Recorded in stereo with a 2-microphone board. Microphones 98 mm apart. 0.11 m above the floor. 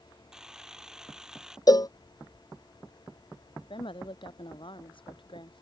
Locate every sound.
0.3 s a camera shutter: 5° right (ahead or behind)
1.7 s a cowbell: 40° left (ahead or behind)
3.7 s a woman speaking: 60° left (ahead or behind)